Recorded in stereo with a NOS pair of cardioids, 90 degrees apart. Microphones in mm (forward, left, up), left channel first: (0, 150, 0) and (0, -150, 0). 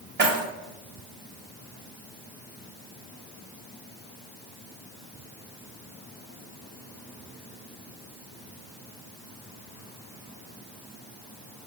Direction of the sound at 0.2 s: 35° right.